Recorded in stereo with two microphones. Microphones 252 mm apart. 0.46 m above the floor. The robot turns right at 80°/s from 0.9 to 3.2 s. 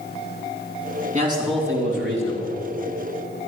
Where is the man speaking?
30° right, 3.5 m; by 2.6 s 90° left, 3.5 m.